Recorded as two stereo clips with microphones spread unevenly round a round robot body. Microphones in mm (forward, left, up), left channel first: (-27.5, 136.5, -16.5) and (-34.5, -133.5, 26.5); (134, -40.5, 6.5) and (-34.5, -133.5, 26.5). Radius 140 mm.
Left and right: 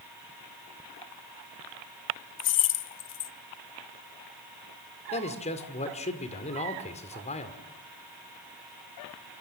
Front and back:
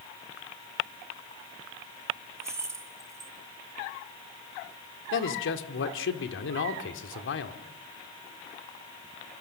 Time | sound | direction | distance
2.4 | keys jangling | 125° left | 0.7 m
5.1 | a man speaking | 20° left | 2.0 m